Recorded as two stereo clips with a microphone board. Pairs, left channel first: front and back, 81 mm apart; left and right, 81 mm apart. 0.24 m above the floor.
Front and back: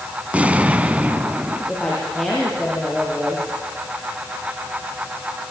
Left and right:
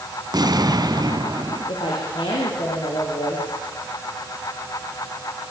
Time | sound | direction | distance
0.3 | an explosion | 110° right | 1.2 m
1.7 | a woman speaking | 85° left | 7 m